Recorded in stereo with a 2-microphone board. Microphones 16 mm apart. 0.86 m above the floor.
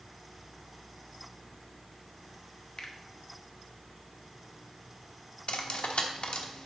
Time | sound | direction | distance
2.8 | a finger snap | 50° left (ahead or behind) | 1.3 m
5.5 | cutlery clinking | 70° left (ahead or behind) | 1.2 m